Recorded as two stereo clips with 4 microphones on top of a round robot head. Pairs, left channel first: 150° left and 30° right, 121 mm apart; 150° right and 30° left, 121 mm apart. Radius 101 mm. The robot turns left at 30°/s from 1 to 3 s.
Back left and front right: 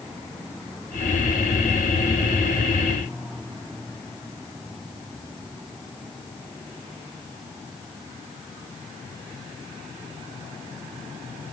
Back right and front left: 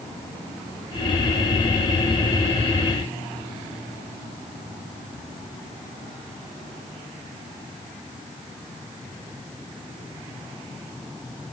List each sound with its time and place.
Only background noise.